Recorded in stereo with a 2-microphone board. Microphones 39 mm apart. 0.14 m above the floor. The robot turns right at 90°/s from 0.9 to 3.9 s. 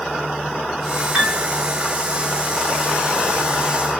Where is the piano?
5° right (ahead or behind), 1.6 m; by 1.4 s 5° left (ahead or behind), 1.6 m.